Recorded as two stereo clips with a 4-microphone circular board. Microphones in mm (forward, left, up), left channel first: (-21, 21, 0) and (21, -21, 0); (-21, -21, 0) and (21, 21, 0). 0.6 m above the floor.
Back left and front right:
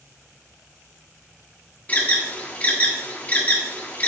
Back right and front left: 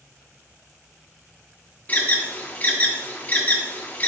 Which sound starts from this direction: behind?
An alarm, at 1.9 s.